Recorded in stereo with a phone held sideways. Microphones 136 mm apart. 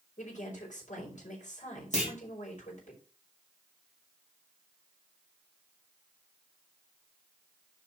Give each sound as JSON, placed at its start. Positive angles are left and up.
{"t": 0.2, "sound": "a woman speaking", "side_deg": 65, "distance_m": 5.0}
{"t": 1.9, "sound": "a clunk", "side_deg": 60, "distance_m": 2.5}